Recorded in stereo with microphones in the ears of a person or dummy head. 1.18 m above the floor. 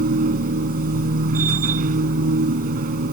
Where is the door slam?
I don't hear a door slam.